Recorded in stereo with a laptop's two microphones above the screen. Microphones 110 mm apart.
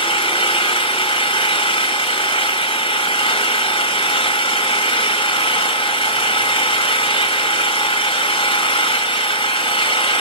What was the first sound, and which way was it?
An engine running, 55° left (ahead or behind).